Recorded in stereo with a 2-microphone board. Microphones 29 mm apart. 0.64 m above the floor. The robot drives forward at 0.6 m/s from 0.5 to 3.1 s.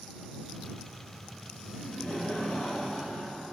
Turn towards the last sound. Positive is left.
turn(degrees=40)  # may be behind; listen again after turning